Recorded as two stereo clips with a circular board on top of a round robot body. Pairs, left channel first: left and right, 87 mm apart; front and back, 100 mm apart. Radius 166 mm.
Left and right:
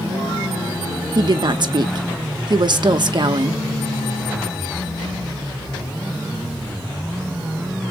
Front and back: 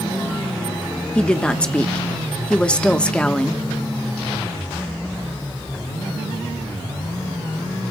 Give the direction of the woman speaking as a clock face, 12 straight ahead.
3 o'clock.